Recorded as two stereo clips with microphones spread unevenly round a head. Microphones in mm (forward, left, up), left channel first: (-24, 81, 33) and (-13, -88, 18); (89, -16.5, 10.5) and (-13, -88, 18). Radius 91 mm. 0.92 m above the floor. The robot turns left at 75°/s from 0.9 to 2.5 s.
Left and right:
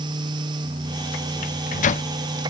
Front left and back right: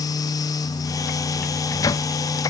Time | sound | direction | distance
1.4 | a microwave | 110° left | 0.7 m